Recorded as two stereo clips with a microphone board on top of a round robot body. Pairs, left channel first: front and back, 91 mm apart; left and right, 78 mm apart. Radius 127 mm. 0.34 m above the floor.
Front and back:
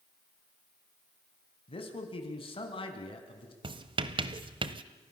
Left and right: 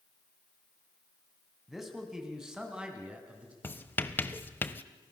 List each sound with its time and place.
1.7 s a man speaking: straight ahead, 4 m; by 3.5 s 15° right, 4.5 m
3.6 s writing: 155° left, 1.2 m